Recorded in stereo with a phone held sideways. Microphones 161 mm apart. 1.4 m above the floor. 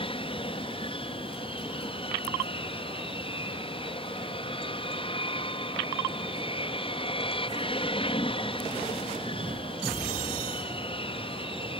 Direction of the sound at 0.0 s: 35° left (ahead or behind).